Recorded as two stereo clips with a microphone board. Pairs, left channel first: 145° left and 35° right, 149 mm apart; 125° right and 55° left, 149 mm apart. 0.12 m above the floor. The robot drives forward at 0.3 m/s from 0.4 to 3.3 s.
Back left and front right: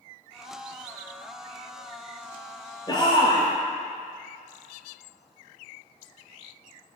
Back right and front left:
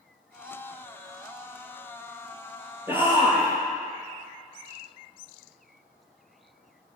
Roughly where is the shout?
Behind left.